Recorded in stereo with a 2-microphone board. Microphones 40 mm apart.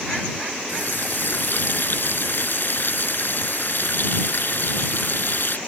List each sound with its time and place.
0.7 s a running tap: 60° left (ahead or behind)